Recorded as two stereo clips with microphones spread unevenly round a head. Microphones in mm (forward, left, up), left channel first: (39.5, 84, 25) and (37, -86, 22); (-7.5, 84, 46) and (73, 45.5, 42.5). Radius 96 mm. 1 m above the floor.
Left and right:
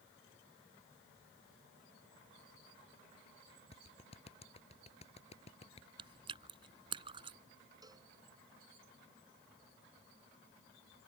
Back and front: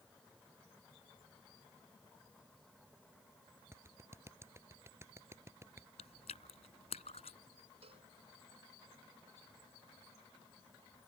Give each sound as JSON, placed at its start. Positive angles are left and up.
{"t": 3.7, "sound": "a clap", "azimuth_deg": 35}
{"t": 6.0, "sound": "chewing", "azimuth_deg": -155}
{"t": 7.8, "sound": "a cowbell", "azimuth_deg": -20}